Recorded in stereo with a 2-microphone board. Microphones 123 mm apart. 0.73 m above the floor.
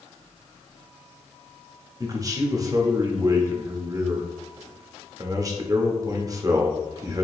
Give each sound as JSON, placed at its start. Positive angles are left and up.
{"t": 2.0, "sound": "a man speaking", "side_deg": -30, "distance_m": 0.8}